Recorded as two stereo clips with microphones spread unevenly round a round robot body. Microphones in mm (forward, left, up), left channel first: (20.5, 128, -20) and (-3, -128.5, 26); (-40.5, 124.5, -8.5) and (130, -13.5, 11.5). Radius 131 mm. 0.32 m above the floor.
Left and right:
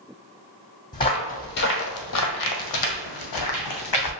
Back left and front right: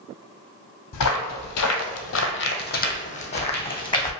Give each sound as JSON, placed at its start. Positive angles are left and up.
{"t": 0.9, "sound": "footsteps", "azimuth_deg": 160, "distance_m": 0.9}